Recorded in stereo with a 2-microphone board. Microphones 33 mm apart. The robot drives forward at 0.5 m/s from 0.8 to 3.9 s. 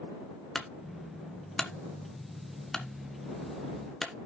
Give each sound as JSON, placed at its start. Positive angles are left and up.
{"t": 0.6, "sound": "a clunk", "side_deg": 10, "distance_m": 1.3}